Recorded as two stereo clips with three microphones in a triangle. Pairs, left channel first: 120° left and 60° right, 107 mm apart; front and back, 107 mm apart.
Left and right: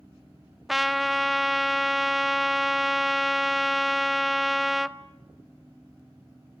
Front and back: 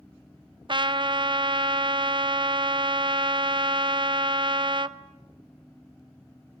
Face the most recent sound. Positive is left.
turn(degrees=-150)